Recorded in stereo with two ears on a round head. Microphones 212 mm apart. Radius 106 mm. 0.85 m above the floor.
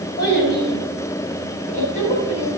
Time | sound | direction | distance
0.2 | a child speaking | 45° left (ahead or behind) | 4 m